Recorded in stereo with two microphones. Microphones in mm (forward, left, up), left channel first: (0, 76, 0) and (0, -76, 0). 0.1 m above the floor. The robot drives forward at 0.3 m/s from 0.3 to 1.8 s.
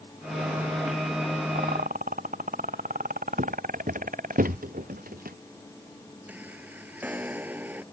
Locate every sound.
1.6 s a rattle: 70° right (ahead or behind); by 4.4 s 65° right (ahead or behind)
3.4 s footsteps: 60° right (ahead or behind); by 5.4 s 75° right (ahead or behind)
6.3 s a chime: 10° right (ahead or behind)